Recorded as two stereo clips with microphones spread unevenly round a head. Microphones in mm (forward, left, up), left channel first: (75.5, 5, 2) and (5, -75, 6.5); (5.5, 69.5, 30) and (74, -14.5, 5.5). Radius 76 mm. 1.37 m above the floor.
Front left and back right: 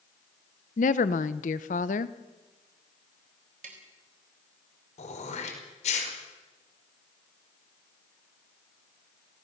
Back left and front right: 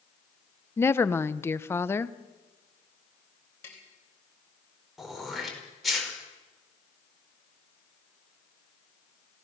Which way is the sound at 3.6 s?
160° right.